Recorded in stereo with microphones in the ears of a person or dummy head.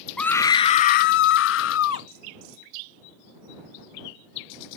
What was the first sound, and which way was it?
A scream, 5° left (ahead or behind).